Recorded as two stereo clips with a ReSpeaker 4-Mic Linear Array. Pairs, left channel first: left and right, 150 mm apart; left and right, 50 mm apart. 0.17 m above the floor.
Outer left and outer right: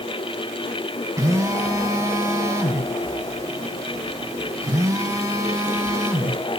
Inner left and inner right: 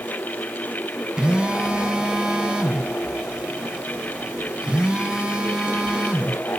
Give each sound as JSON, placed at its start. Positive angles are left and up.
{"t": 1.2, "sound": "a phone buzzing", "side_deg": -20, "distance_m": 1.9}